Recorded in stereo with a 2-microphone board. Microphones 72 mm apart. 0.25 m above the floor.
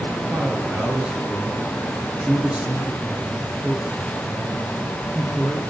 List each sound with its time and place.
0.3 s a man speaking: 20° right (ahead or behind), 5.5 m